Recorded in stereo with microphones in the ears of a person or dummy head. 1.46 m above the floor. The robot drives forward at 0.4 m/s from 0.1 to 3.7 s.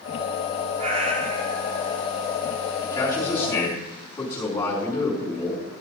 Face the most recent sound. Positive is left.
turn(degrees=20)  # may be behind; listen again after turning